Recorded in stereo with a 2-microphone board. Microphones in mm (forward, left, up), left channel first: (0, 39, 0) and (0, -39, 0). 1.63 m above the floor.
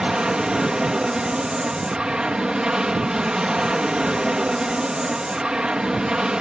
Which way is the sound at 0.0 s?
10° right (ahead or behind).